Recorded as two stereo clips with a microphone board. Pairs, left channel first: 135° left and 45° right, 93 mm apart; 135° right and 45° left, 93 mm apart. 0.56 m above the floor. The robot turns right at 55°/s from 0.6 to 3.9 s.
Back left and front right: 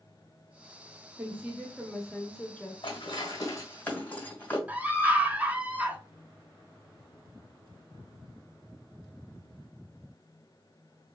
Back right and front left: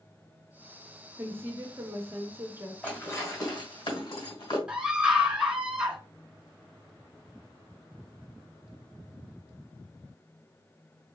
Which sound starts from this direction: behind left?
Dishes clattering, at 2.8 s.